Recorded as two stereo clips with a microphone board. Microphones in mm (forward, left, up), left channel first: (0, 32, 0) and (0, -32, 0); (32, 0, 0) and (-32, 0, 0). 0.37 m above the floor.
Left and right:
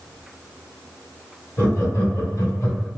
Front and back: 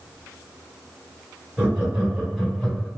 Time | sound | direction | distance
1.6 | laughter | 110° left | 2.0 m